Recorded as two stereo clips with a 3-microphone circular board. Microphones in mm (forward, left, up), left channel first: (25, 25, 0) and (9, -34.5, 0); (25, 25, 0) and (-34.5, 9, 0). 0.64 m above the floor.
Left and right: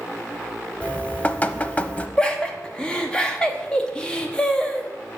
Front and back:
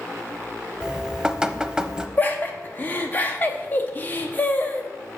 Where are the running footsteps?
I don't hear running footsteps.